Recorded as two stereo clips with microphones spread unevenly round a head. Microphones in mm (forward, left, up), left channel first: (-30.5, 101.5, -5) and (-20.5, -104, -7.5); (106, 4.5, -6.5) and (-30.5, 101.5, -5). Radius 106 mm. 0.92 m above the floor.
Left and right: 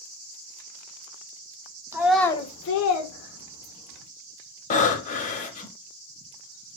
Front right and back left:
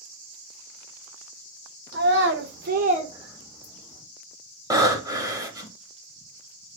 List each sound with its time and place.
1.9 s a child speaking: 165° right, 0.8 m; by 4.0 s 65° left, 1.7 m
4.7 s breathing: 95° left, 0.8 m